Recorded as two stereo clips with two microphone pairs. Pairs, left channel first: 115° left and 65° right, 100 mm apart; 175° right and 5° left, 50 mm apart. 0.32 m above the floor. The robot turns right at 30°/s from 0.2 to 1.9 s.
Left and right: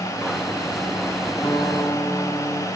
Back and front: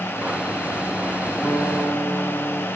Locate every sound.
1.4 s a guitar: 140° left, 3.5 m; by 2.7 s 155° left, 3.5 m